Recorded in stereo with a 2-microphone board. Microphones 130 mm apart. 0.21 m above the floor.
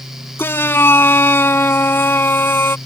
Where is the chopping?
No chopping in this recording.